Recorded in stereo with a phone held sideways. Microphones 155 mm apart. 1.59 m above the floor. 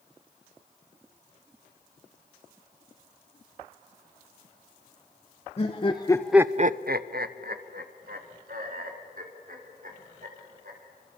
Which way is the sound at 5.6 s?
40° left (ahead or behind).